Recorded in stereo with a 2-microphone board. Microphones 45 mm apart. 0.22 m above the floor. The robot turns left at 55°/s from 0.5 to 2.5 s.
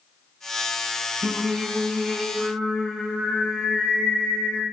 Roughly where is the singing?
Behind right.